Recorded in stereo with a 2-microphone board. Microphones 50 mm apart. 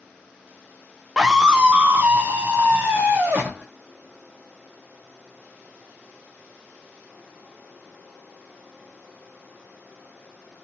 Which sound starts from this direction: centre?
A scream, at 1.2 s.